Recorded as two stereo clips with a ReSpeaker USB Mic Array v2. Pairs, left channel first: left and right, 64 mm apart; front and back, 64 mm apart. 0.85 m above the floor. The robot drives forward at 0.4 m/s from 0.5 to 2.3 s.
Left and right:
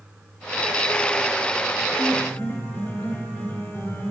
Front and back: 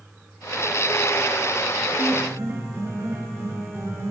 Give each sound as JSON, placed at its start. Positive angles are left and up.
{"t": 2.0, "sound": "a piano", "azimuth_deg": 140, "distance_m": 1.9}